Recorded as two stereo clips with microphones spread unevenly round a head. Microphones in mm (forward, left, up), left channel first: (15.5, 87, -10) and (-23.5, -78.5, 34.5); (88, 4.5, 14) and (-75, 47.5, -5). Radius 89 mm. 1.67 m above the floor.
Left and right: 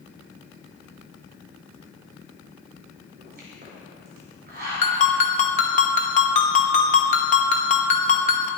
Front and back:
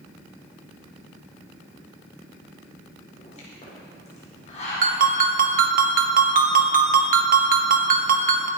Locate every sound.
3.2 s a pop: 70° right, 5 m
4.8 s a ringtone: 130° left, 1.3 m